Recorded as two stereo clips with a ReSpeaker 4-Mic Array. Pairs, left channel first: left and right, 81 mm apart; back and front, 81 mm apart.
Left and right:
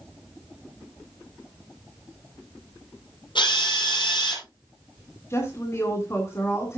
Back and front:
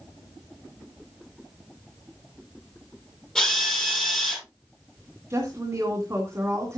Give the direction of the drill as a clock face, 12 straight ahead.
9 o'clock.